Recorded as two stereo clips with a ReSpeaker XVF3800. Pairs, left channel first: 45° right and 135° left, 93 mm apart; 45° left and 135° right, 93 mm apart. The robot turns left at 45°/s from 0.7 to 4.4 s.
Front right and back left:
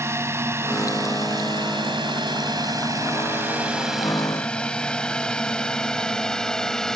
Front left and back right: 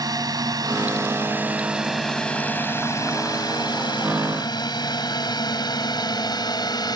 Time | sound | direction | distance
0.0 | a drone | 170° right | ?